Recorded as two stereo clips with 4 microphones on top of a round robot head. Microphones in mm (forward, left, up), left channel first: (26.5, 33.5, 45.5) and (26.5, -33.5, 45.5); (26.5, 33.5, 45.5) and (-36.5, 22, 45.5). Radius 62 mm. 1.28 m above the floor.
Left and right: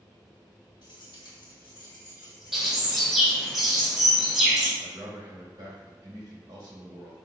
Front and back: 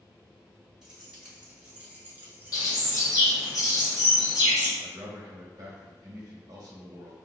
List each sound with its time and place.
0.8 s keys jangling: 110° left, 1.9 m; by 3.5 s 170° left, 0.9 m
2.5 s a bird: 10° right, 1.7 m
4.8 s a man speaking: 130° right, 1.1 m